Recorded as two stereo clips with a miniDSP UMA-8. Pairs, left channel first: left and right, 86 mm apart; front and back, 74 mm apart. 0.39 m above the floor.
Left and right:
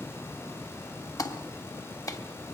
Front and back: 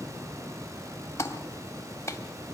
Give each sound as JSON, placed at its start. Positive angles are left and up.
{"t": 1.2, "sound": "a clap", "azimuth_deg": 50, "distance_m": 1.8}